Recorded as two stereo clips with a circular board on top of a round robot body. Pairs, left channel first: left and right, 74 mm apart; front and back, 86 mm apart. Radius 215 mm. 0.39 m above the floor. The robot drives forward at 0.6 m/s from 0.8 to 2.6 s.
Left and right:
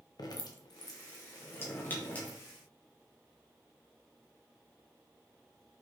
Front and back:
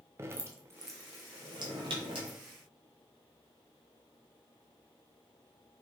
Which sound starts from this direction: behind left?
Dripping, at 0.2 s.